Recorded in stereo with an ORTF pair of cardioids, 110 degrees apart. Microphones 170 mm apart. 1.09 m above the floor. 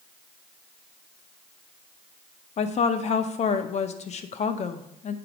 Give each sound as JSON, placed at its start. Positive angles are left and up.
{"t": 2.6, "sound": "a woman speaking", "azimuth_deg": 40, "distance_m": 0.7}